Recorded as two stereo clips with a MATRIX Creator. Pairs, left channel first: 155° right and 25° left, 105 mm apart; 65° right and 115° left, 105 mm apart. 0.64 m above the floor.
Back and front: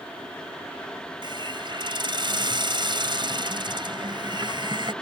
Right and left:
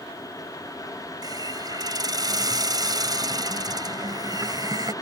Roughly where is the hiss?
Ahead left.